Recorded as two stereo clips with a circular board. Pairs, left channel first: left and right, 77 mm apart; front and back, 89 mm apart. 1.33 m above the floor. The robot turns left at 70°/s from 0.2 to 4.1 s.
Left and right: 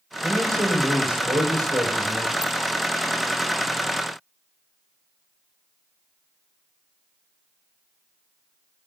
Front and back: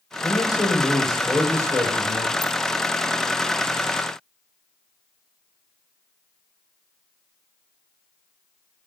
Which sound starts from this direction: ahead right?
A man speaking, at 0.2 s.